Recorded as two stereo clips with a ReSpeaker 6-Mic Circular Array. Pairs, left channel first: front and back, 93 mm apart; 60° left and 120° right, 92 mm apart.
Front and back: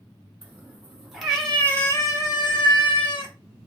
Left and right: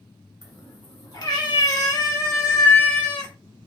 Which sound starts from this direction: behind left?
A cat meowing, at 0.4 s.